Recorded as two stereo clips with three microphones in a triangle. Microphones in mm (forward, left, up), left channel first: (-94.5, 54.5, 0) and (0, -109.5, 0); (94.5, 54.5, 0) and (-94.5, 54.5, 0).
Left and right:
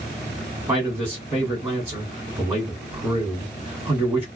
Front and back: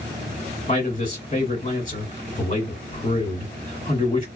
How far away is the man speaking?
About 1.9 m.